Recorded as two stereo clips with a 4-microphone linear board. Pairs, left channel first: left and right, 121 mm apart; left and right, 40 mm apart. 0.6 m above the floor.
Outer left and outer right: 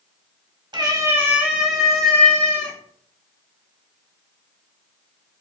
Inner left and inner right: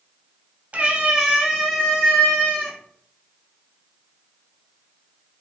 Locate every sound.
0.7 s a cat meowing: 40° right (ahead or behind), 0.8 m; by 2.8 s 15° left (ahead or behind), 1.8 m